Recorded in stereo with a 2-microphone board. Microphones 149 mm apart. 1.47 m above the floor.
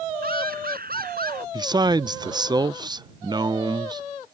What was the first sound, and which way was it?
Laughter, 85° right.